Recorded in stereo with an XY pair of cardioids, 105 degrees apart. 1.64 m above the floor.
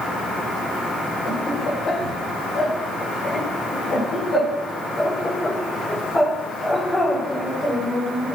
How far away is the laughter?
About 6.5 m.